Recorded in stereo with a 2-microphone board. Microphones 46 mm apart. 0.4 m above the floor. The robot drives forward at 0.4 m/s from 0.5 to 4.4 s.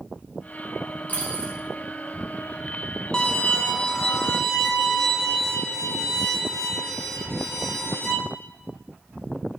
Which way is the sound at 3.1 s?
20° left (ahead or behind).